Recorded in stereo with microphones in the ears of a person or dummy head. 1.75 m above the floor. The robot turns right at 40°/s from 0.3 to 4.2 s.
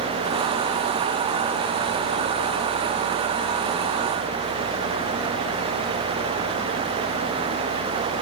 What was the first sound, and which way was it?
Only background noise.